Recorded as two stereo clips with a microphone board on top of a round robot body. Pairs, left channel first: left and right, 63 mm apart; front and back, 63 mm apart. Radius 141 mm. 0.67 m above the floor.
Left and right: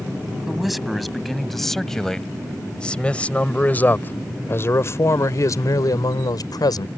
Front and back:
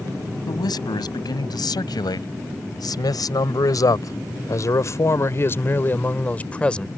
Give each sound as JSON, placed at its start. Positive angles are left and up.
{"t": 0.5, "sound": "a man speaking", "azimuth_deg": 0}